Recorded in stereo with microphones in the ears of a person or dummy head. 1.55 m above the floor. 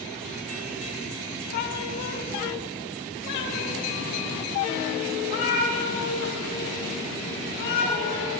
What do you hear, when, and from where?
1.5 s a cat meowing: 45° left (ahead or behind), 1.3 m; by 8.4 s 65° left (ahead or behind), 9 m